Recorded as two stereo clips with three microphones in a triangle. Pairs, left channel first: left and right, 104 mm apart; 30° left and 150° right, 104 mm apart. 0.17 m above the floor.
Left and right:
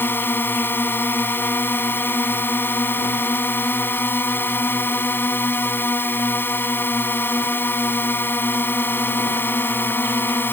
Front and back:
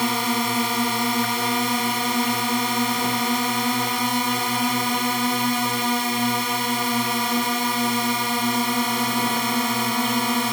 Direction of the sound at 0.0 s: 120° left.